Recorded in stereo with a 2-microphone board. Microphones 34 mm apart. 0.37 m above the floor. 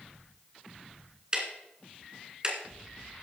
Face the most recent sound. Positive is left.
turn(degrees=-20)  # may be behind; listen again after turning